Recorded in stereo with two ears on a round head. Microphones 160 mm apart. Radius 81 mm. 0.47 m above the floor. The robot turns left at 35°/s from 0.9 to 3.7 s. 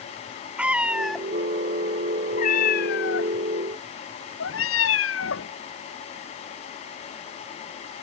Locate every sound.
0.6 s a cat meowing: 5° right (ahead or behind); by 5.5 s 90° left